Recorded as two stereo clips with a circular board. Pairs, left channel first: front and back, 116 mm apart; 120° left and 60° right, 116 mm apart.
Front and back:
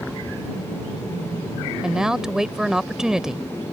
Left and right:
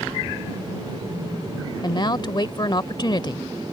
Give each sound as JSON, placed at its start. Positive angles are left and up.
{"t": 1.8, "sound": "a woman speaking", "azimuth_deg": 100}